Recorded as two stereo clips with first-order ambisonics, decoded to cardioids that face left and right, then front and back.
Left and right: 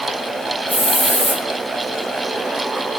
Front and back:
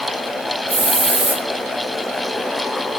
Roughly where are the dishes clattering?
I don't hear dishes clattering.